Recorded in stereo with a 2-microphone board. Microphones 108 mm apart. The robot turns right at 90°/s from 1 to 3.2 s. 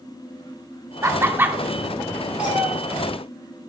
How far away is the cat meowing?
About 2 m.